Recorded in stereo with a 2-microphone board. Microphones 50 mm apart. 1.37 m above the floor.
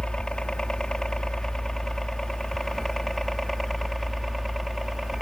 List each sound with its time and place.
0.0 s a helicopter: 15° left (ahead or behind); by 5.2 s centre (ahead or behind)